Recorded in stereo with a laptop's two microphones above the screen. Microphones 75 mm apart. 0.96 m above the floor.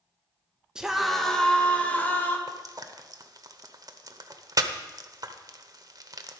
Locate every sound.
0.8 s a scream: 10° right (ahead or behind), 1.1 m; by 2.4 s 25° left (ahead or behind), 1.6 m
2.5 s frying: 50° right (ahead or behind), 0.8 m